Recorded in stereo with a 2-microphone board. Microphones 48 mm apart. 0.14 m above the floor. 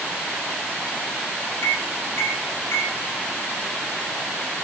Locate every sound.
1.6 s a microwave: 70° left (ahead or behind), 7 m